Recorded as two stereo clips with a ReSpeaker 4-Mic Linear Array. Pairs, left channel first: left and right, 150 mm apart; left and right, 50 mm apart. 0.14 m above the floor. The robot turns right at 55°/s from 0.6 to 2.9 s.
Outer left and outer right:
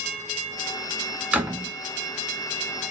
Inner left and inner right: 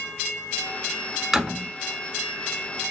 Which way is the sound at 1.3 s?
10° right (ahead or behind).